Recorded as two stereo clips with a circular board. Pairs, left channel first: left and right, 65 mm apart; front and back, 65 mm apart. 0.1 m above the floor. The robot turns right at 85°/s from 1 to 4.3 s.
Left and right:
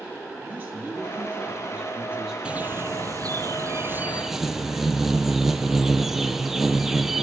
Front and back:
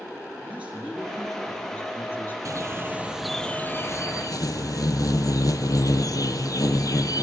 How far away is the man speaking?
About 2 m.